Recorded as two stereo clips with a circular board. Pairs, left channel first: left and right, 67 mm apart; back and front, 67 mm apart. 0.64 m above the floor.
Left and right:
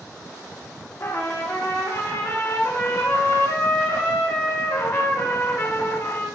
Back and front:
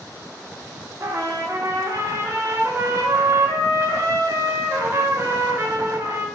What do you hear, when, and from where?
1.0 s a trumpet: 45° left, 0.6 m